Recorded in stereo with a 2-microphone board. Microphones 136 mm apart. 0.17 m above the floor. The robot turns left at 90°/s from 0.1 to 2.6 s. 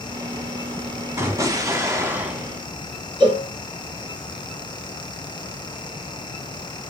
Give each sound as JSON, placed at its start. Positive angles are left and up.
{"t": 1.2, "sound": "an explosion", "side_deg": -20, "distance_m": 0.9}
{"t": 3.2, "sound": "a cowbell", "side_deg": -40, "distance_m": 1.0}